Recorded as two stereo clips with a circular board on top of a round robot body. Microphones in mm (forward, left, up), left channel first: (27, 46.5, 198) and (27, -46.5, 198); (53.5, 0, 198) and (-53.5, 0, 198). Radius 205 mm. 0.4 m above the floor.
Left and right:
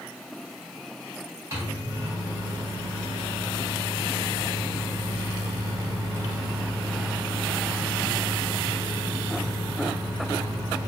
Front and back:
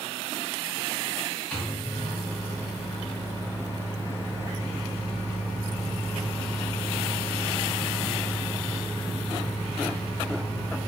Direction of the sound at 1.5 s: 70° right.